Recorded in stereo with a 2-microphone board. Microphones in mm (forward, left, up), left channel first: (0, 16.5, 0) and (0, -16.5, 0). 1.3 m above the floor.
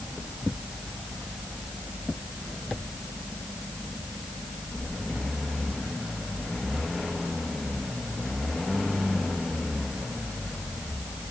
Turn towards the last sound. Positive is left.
No sound to turn to.